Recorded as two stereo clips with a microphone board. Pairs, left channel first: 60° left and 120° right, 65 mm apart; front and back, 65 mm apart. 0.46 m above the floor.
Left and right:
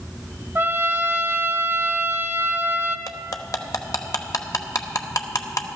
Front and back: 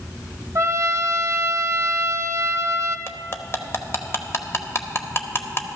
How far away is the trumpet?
About 1.0 m.